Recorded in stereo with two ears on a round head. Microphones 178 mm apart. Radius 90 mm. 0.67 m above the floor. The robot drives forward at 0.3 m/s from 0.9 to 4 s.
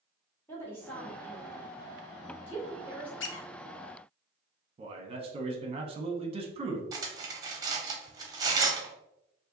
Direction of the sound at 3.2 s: 65° left (ahead or behind).